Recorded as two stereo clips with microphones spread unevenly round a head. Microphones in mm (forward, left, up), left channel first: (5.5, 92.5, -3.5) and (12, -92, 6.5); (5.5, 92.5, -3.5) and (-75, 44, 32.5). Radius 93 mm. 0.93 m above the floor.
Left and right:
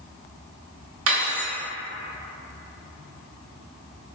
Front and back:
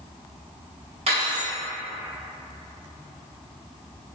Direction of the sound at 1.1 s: 105° right.